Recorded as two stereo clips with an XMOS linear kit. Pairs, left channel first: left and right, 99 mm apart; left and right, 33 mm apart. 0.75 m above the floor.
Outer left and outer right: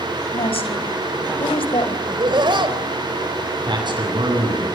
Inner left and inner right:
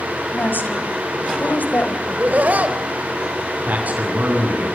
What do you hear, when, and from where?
0.3 s a woman speaking: 80° left, 4.5 m; by 2.0 s 70° left (ahead or behind), 3.5 m
2.1 s laughter: 55° right (ahead or behind), 3 m
3.7 s a man speaking: 55° right (ahead or behind), 8.5 m